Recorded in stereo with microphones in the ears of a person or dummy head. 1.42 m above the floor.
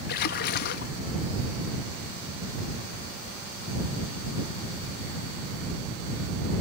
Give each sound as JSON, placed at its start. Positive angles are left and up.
{"t": 0.1, "sound": "a splash", "side_deg": 60}